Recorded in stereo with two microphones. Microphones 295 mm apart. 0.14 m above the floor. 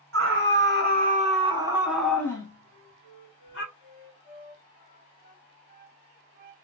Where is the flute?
25° right (ahead or behind), 1.2 m.